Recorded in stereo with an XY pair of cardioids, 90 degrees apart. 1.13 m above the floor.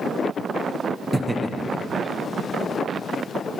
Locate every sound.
1.1 s laughter: 30° right, 0.5 m; by 3.0 s 60° left, 1.6 m